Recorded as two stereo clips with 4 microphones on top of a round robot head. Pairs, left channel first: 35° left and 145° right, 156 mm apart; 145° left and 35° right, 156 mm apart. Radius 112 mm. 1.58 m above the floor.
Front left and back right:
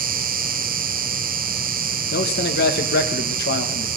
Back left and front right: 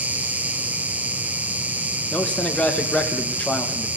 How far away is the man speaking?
About 1.6 m.